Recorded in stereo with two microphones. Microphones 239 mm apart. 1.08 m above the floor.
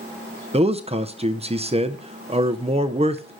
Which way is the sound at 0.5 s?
25° right (ahead or behind).